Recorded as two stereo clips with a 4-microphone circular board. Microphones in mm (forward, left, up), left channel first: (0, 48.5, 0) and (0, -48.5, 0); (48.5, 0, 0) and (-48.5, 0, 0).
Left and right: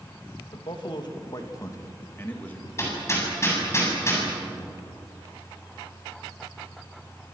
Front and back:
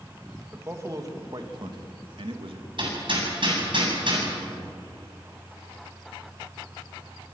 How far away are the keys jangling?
No keys jangling in this recording.